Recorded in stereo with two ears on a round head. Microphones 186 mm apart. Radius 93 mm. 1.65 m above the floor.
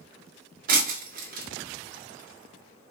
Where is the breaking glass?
45° right (ahead or behind), 2 m.